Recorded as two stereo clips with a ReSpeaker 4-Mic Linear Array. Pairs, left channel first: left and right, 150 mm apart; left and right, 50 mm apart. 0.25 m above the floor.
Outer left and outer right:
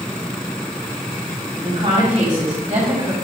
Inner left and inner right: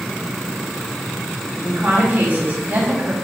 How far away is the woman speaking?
About 1.9 m.